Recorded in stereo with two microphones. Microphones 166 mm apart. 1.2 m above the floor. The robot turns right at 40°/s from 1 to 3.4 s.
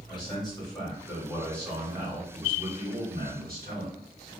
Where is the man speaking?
150° left, 1.6 m; by 4.3 s 115° right, 1.6 m.